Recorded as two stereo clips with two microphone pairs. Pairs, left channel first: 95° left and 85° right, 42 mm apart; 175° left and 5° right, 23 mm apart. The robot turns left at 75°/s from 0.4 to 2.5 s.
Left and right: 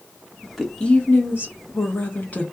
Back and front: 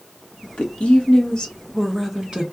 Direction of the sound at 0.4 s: 165° right.